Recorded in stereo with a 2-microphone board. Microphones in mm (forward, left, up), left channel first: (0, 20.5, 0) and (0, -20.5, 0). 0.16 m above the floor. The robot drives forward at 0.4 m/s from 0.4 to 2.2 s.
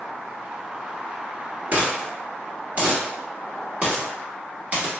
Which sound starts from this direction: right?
A dropped coin, at 1.7 s.